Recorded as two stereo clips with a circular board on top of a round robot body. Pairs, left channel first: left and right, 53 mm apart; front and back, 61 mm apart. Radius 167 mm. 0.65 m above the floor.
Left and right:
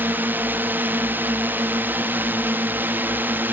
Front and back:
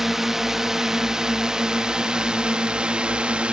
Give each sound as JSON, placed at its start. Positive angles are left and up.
{"t": 0.0, "sound": "a drone", "azimuth_deg": -100}